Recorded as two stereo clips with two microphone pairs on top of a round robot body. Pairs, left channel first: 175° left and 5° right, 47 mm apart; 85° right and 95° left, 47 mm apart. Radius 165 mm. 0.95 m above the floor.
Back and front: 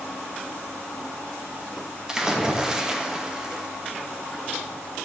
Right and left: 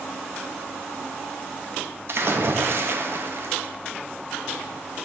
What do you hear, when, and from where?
2.1 s a splash: 75° left, 1.9 m